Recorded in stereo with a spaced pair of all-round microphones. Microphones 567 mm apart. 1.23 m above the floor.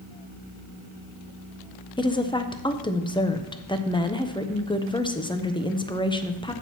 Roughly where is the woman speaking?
Centre.